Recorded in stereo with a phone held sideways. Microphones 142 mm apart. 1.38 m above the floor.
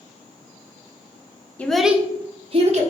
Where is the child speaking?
10° left (ahead or behind), 0.7 m; by 2.8 s 50° right (ahead or behind), 0.9 m.